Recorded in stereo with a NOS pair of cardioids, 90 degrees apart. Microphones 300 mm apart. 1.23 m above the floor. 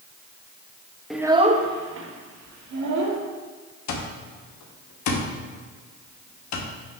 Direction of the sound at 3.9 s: 65° left.